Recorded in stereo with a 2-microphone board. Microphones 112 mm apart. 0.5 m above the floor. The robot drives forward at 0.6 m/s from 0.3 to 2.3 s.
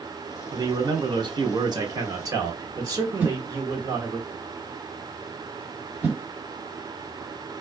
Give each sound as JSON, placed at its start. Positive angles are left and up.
{"t": 0.5, "sound": "a man speaking", "side_deg": -35, "distance_m": 1.0}
{"t": 3.2, "sound": "a whoosh", "side_deg": -15, "distance_m": 1.3}